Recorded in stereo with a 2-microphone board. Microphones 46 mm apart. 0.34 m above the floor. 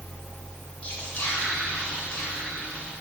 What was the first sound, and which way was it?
Whispering, 30° left (ahead or behind).